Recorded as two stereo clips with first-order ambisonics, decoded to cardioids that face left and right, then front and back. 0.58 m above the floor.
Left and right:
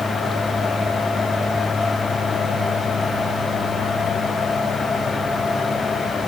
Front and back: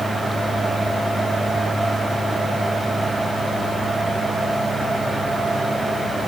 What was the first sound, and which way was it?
Only background noise.